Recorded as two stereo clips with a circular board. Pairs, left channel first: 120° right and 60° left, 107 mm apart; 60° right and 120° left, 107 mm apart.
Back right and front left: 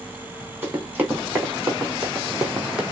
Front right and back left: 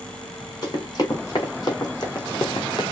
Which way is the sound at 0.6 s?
5° right.